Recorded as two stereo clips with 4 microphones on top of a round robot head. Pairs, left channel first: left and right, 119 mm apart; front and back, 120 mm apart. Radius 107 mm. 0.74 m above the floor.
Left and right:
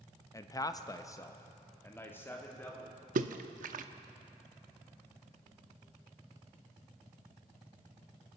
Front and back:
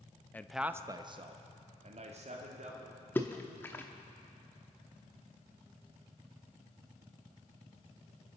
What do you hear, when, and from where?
0.3 s a man speaking: 60° left, 0.7 m; by 3.0 s 165° left, 2.5 m
3.1 s a splash: 80° right, 0.6 m